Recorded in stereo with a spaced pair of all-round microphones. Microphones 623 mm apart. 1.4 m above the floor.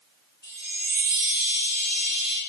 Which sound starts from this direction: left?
A chime, at 0.4 s.